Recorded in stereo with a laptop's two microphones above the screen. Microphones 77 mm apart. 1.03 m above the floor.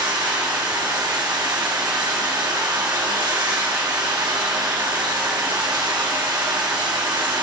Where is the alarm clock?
No alarm clock in this recording.